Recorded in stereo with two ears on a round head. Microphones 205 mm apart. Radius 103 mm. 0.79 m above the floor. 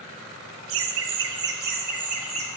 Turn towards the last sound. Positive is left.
turn(degrees=-30)  # may be behind; listen again after turning